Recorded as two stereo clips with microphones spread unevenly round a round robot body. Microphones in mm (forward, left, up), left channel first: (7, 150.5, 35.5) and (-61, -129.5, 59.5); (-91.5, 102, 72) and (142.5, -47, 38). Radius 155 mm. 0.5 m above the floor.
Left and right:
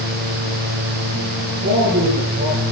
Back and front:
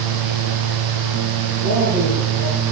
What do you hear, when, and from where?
1.6 s a man speaking: 35° right, 9 m